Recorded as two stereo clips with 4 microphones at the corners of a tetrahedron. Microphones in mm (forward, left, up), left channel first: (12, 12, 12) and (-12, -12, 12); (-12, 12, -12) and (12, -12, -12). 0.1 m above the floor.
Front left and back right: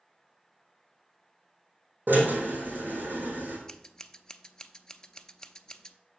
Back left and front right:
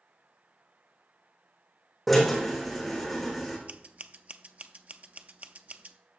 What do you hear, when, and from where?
2.1 s a drill: 135° right, 4 m
3.7 s scissors: 25° right, 0.5 m